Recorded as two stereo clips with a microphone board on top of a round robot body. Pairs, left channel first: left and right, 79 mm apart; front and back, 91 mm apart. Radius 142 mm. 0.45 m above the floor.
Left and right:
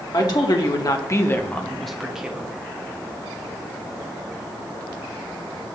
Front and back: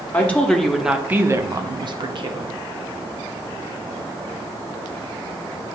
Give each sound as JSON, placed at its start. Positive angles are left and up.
{"t": 0.1, "sound": "a woman speaking", "azimuth_deg": 70, "distance_m": 1.4}